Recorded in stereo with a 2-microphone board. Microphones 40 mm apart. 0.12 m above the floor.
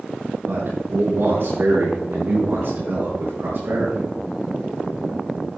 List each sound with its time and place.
0.5 s a man speaking: 70° right (ahead or behind), 4 m; by 4.1 s 65° right (ahead or behind), 6.5 m